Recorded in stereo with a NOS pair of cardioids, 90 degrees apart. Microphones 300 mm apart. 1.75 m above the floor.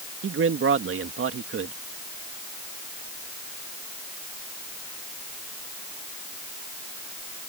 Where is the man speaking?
45° right.